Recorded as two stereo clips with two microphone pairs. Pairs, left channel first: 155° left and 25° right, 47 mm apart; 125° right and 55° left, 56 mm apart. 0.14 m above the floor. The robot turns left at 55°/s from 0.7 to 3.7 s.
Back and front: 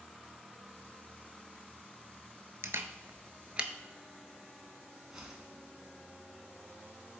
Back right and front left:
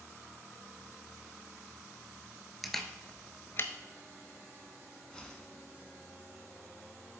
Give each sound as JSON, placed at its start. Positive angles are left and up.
{"t": 2.6, "sound": "a camera shutter", "azimuth_deg": -40, "distance_m": 0.5}
{"t": 5.1, "sound": "a whoosh", "azimuth_deg": -90, "distance_m": 0.9}